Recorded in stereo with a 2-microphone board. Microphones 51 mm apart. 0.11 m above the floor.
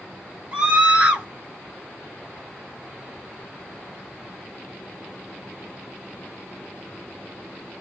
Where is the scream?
20° right (ahead or behind), 1.5 m.